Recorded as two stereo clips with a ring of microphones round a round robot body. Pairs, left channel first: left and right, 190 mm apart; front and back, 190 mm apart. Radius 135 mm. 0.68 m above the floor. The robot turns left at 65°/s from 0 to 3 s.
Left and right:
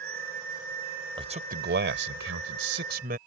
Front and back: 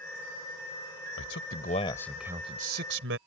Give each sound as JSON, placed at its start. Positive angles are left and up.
{"t": 1.2, "sound": "a man speaking", "azimuth_deg": -25}